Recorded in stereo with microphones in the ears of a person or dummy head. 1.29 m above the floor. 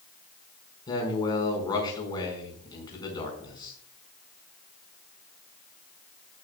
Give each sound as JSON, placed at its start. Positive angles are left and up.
{"t": 0.9, "sound": "a man speaking", "side_deg": 25, "distance_m": 4.5}